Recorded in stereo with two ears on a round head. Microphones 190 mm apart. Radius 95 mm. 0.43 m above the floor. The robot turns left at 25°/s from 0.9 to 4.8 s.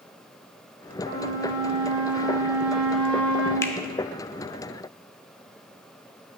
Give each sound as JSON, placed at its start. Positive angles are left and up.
{"t": 1.0, "sound": "a flute", "azimuth_deg": -135, "distance_m": 2.5}
{"t": 3.6, "sound": "a finger snap", "side_deg": 15, "distance_m": 0.6}